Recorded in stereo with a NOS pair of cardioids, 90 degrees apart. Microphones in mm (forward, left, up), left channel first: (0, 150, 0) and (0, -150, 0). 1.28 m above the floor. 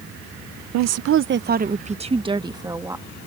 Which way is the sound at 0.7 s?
70° right.